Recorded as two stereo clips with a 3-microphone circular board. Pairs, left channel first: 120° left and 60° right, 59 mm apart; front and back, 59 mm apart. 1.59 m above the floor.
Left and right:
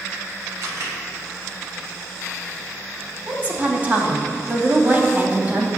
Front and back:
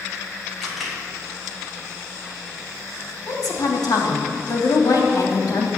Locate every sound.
0.6 s a camera shutter: 90° right, 3.5 m
3.3 s a woman speaking: straight ahead, 3 m